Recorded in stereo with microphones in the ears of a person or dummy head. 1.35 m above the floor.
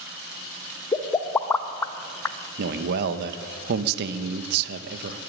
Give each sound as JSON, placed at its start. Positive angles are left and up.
{"t": 0.9, "sound": "a pop", "side_deg": 15, "distance_m": 0.8}
{"t": 2.6, "sound": "a man speaking", "side_deg": -60, "distance_m": 1.3}